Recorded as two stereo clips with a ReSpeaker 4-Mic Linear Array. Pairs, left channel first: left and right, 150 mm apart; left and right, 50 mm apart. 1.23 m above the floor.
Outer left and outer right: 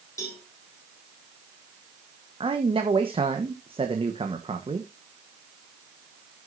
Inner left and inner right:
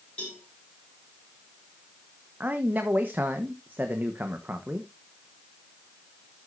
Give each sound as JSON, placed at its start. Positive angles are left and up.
{"t": 0.2, "sound": "a cowbell", "side_deg": 20, "distance_m": 4.5}
{"t": 2.4, "sound": "a man speaking", "side_deg": -35, "distance_m": 1.0}